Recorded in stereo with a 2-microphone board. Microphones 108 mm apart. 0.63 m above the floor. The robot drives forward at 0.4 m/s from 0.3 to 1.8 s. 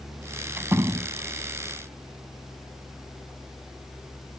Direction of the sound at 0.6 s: 20° right (ahead or behind).